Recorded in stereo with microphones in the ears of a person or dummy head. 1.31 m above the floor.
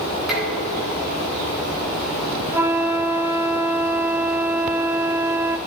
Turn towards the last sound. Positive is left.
turn(degrees=-10)  # may be behind; listen again after turning